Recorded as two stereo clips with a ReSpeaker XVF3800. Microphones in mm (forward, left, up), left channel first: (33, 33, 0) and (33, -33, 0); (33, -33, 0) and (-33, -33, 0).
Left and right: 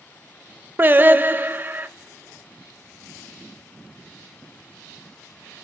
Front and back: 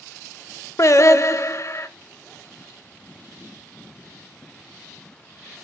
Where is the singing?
35° right, 0.5 m.